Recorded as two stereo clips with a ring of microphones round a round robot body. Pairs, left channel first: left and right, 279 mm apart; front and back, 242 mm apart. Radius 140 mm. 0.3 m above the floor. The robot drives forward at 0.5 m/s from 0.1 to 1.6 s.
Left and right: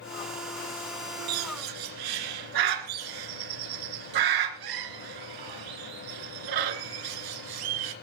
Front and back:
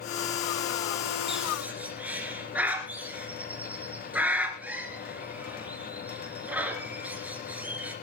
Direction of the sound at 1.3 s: 90° right.